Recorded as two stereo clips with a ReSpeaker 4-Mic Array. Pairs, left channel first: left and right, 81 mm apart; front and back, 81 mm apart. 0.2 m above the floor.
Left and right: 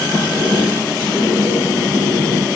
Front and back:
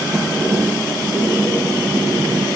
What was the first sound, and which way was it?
A sliding door, 125° left.